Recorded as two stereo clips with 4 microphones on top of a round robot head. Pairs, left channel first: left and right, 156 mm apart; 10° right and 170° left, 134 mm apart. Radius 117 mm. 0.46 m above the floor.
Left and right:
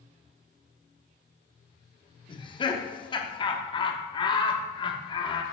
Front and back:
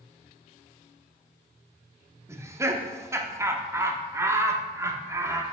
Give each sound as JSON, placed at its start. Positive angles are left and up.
{"t": 2.3, "sound": "laughter", "azimuth_deg": 115, "distance_m": 0.9}